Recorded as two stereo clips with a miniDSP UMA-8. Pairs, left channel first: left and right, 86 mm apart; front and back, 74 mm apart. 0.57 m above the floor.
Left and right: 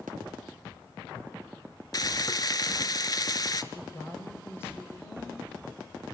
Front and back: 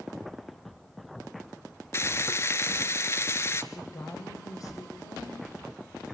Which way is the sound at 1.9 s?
50° left.